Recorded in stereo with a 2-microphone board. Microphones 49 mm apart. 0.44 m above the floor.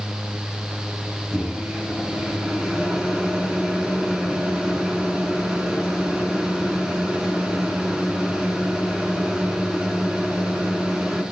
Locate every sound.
1.3 s a microwave: 20° right (ahead or behind), 3 m